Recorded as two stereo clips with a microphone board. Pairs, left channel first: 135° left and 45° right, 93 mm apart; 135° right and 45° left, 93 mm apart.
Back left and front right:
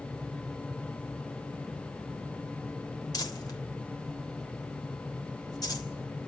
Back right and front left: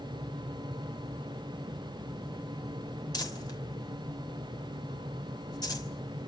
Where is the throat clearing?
I don't hear throat clearing.